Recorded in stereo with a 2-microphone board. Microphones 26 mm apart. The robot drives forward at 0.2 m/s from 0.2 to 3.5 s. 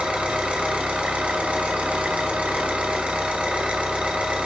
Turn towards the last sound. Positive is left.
turn(degrees=-55)  # may be behind; listen again after turning